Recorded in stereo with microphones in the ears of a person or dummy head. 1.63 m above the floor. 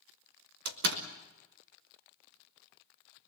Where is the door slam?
60° right (ahead or behind), 1.4 m.